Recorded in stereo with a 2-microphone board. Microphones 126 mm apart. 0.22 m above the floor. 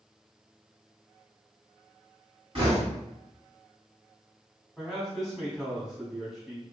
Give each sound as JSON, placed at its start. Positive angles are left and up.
{"t": 2.5, "sound": "knocking", "side_deg": -50, "distance_m": 1.8}
{"t": 4.8, "sound": "a man speaking", "side_deg": 0, "distance_m": 1.4}